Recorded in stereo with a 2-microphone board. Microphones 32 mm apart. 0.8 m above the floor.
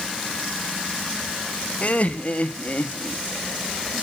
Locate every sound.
1.8 s laughter: 45° left (ahead or behind), 1.4 m